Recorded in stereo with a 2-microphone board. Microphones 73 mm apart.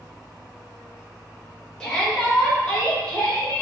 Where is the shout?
15° left (ahead or behind), 1.7 m; by 3.6 s 20° left (ahead or behind), 3 m.